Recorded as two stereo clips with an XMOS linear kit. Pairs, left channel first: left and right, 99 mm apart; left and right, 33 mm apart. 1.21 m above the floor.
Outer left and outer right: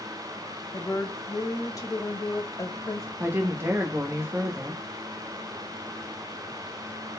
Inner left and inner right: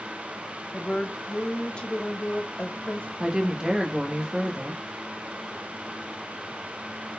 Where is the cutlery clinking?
I don't hear cutlery clinking.